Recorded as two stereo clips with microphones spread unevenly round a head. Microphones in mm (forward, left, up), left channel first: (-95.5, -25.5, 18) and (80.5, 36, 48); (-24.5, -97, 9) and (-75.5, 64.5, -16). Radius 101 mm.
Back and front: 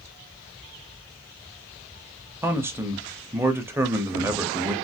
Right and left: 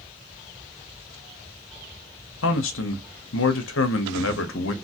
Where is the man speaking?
60° right, 0.7 m.